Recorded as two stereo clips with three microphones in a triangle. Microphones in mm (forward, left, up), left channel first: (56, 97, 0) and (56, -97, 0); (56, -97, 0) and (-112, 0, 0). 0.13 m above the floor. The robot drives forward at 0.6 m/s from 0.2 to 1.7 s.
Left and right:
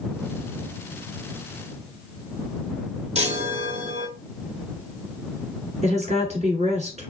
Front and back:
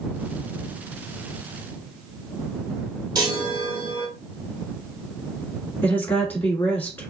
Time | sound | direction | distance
3.1 | a chime | 145° right | 0.9 m
5.8 | a woman speaking | 105° right | 1.2 m